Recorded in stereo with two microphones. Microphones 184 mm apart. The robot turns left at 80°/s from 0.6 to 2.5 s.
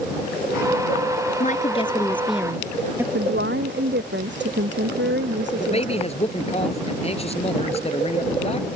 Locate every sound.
1.4 s a woman speaking: 75° left; by 3.0 s 15° right
3.1 s a woman speaking: 80° right
5.5 s a man speaking: 35° left (ahead or behind)